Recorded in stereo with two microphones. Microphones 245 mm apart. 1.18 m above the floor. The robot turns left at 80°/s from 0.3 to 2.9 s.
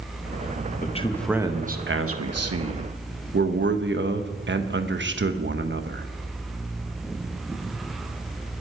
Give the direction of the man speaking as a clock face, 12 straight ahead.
11 o'clock.